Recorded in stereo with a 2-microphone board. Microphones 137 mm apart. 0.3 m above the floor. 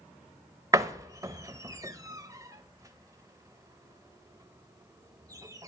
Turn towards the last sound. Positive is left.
turn(degrees=-25)  # may be behind; listen again after turning